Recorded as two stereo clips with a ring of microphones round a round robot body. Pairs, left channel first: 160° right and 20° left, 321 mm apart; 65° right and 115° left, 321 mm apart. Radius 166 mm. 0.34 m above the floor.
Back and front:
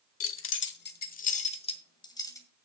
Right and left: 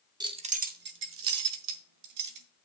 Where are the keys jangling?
175° right, 1.1 m; by 2.5 s 120° left, 1.7 m.